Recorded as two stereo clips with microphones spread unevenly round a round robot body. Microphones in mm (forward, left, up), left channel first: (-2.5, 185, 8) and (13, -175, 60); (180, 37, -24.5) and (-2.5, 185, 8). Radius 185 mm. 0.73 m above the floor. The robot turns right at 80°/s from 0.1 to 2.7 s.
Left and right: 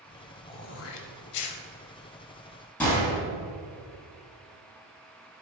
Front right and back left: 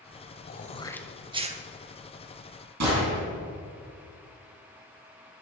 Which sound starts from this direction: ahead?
Throat clearing, at 0.5 s.